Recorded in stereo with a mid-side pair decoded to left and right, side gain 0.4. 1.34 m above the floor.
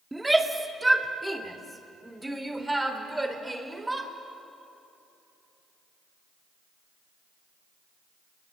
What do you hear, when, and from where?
0.1 s a shout: 10° right, 3 m; by 4.1 s 15° right, 5 m